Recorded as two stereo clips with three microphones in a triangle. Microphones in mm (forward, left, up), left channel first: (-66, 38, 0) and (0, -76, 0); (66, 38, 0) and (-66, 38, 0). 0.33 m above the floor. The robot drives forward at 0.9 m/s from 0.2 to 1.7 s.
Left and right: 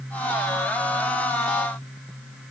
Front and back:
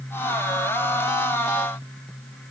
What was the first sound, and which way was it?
Only background noise.